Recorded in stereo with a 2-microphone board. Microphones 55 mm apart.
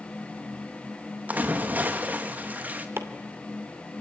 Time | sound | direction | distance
1.3 | a splash | 30° right (ahead or behind) | 2 m
3.0 | chopping | 45° right (ahead or behind) | 2.5 m